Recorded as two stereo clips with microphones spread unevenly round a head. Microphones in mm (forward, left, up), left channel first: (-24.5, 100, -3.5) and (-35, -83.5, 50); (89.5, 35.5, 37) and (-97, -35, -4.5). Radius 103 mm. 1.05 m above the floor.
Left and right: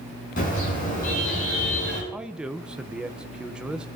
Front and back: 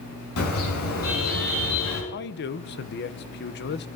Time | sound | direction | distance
0.4 | a car horn | 35° left | 6 m
2.1 | a man speaking | 10° left | 0.8 m